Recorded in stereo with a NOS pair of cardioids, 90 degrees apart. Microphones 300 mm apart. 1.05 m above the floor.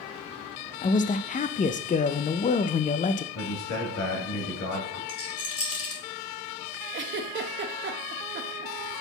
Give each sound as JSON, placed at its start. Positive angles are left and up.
{"t": 0.8, "sound": "a man speaking", "azimuth_deg": 25, "distance_m": 0.5}
{"t": 3.4, "sound": "a man speaking", "azimuth_deg": 70, "distance_m": 2.5}
{"t": 5.1, "sound": "a rattle", "azimuth_deg": 50, "distance_m": 1.9}
{"t": 6.9, "sound": "a giggle", "azimuth_deg": -40, "distance_m": 0.8}